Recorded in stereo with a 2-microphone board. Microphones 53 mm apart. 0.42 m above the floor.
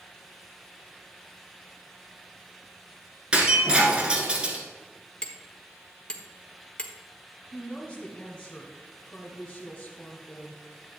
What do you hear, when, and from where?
3.3 s breaking glass: 20° right (ahead or behind), 1.8 m
5.2 s hammering: 20° left (ahead or behind), 1.1 m
7.5 s a woman speaking: 25° left (ahead or behind), 1.7 m